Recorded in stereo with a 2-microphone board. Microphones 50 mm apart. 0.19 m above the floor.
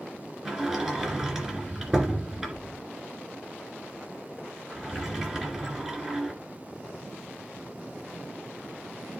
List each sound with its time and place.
0.5 s a sliding door: 10° right (ahead or behind), 2.5 m